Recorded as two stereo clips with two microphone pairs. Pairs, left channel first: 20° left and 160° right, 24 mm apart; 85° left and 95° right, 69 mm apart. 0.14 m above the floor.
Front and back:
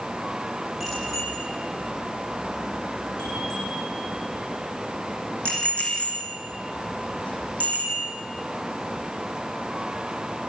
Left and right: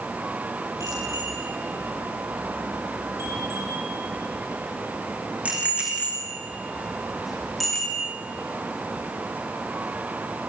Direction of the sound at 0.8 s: 60° right.